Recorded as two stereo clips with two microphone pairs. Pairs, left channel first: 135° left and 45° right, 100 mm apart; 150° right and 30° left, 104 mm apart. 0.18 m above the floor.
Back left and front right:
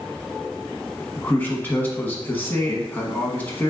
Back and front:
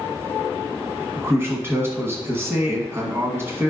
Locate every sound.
1.2 s a man speaking: 75° left, 1.2 m